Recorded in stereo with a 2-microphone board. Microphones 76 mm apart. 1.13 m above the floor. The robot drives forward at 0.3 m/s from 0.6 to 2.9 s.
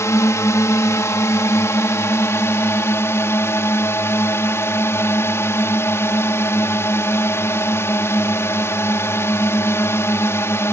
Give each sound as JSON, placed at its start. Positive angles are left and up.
{"t": 0.0, "sound": "a drone", "side_deg": 40}